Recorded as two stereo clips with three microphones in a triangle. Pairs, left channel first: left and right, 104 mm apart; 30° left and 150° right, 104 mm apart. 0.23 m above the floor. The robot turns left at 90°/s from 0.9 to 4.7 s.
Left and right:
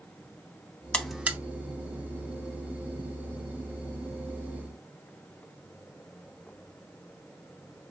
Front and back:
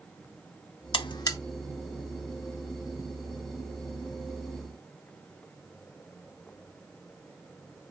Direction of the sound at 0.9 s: 15° left.